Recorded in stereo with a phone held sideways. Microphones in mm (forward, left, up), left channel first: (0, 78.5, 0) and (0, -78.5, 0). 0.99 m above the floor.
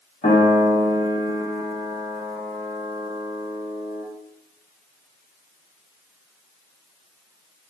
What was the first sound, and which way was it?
A piano, 50° left (ahead or behind).